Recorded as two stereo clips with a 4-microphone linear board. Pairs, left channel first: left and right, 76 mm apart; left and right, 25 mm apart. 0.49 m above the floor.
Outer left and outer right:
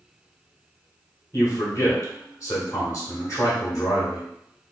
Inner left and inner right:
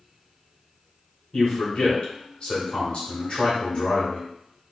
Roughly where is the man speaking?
Left.